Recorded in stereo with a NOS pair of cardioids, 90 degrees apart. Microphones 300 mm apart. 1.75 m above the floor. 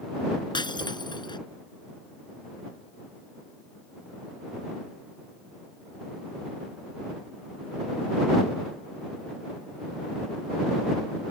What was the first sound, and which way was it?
Breaking glass, 15° left.